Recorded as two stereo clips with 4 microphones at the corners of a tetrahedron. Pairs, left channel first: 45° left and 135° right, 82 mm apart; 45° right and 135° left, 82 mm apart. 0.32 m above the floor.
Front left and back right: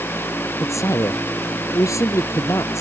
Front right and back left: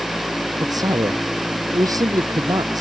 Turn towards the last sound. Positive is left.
turn(degrees=95)